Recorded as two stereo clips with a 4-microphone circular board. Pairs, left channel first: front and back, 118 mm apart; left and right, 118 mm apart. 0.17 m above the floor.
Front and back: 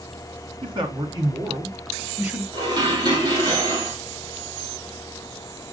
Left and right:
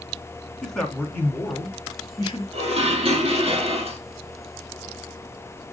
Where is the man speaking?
175° left, 1.8 m; by 2.4 s 115° left, 1.7 m.